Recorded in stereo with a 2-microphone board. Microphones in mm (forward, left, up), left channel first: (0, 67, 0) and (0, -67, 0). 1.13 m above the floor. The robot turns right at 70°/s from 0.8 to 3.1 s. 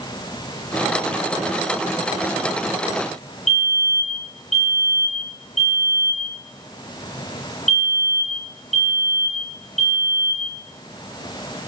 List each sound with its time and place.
3.5 s a fire alarm: 60° left (ahead or behind), 5 m